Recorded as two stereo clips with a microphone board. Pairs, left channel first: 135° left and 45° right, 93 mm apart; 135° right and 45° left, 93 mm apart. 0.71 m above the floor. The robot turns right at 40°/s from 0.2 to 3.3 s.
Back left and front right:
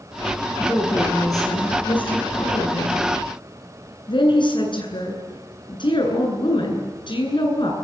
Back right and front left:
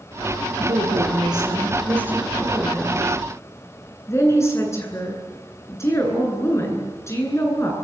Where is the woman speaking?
55° left, 9.5 m; by 7.7 s 165° left, 9.5 m.